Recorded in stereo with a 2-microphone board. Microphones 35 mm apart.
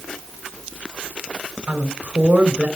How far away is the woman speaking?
About 2.5 m.